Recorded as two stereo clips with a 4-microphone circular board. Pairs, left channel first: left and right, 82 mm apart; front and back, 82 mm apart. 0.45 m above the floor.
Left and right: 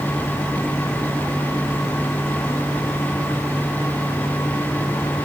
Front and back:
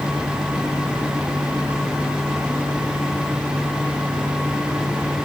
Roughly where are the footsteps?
No footsteps in this recording.